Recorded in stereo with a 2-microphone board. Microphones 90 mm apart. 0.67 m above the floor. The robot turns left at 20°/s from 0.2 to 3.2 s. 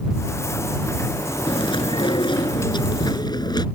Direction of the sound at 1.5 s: 95° left.